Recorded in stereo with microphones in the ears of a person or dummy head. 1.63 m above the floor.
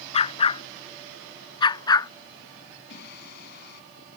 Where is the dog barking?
35° left (ahead or behind); by 2.1 s 20° left (ahead or behind).